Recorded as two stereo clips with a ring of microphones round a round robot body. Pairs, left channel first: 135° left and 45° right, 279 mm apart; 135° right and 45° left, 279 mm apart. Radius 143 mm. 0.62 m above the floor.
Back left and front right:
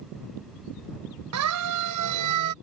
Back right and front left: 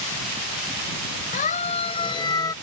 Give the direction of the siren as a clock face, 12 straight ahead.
2 o'clock.